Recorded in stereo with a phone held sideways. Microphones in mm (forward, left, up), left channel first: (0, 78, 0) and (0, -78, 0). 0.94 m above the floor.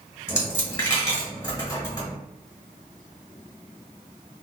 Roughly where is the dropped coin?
Centre.